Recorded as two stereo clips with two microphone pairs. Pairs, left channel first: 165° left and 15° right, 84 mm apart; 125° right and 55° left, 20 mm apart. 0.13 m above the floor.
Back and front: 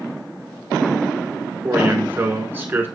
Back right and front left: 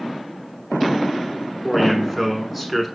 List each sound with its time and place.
1.6 s a man speaking: 25° right, 1.1 m